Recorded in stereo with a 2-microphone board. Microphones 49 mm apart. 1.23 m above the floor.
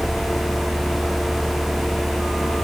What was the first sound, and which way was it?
Only background noise.